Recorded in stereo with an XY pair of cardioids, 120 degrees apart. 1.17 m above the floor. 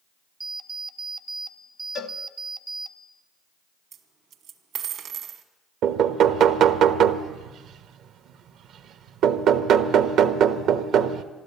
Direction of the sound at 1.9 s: 65° left.